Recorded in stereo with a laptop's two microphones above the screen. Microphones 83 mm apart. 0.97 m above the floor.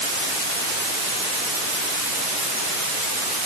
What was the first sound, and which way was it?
Only background noise.